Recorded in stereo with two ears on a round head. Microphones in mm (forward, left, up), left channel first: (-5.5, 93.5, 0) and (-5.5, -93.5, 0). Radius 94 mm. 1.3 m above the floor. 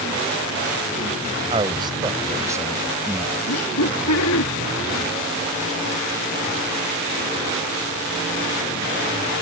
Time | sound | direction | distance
1.5 | a man speaking | 25° right (ahead or behind) | ?
3.5 | laughter | 80° left | ?